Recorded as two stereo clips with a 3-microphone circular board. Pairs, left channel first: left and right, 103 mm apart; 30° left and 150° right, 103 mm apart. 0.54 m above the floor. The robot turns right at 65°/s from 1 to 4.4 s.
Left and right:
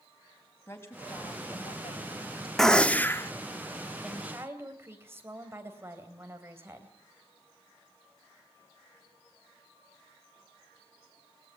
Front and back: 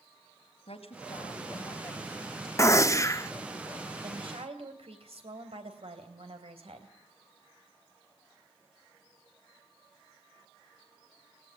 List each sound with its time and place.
0.7 s a woman speaking: 25° left, 3.5 m; by 2.5 s 120° left, 3.5 m
2.6 s a gunshot: 10° left, 0.8 m; by 3.3 s 55° left, 0.8 m
4.0 s a woman speaking: straight behind, 3 m; by 6.9 s 155° right, 3 m